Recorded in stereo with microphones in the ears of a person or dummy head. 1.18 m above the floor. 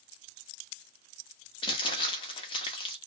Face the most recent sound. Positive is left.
turn(degrees=15)  # may be behind; listen again after turning